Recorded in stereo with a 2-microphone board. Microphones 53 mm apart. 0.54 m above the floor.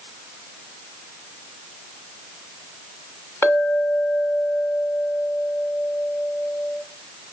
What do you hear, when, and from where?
3.4 s a clink: 50° left (ahead or behind), 1.2 m